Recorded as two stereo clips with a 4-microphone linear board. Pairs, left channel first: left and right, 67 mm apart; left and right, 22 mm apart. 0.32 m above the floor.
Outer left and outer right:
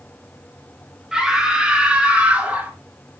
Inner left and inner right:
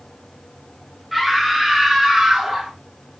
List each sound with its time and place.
1.1 s a scream: 5° right (ahead or behind), 3 m; by 2.7 s 20° right (ahead or behind), 3.5 m